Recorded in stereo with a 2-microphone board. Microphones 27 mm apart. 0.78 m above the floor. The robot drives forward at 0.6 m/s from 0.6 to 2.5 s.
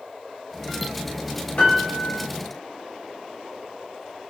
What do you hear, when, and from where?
1.6 s a piano: 60° left (ahead or behind), 2.5 m; by 2.2 s 55° left (ahead or behind), 3 m